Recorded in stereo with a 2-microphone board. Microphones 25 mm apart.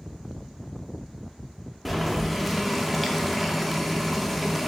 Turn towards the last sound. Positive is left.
turn(degrees=0)  # may be behind; listen again after turning